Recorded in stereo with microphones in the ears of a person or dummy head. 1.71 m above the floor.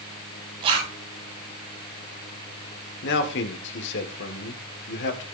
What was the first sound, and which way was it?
A zipper, 35° right (ahead or behind).